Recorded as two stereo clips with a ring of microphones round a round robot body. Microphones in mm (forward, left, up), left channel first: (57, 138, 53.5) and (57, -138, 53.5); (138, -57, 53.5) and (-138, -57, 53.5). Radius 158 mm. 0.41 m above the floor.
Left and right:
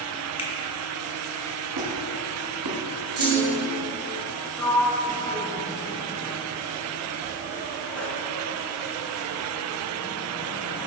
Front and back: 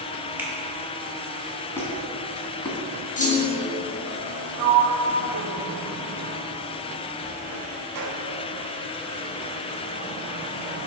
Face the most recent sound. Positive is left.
turn(degrees=175)